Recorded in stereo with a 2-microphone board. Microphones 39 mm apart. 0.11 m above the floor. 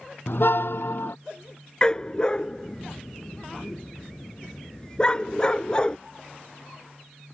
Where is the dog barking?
25° left (ahead or behind).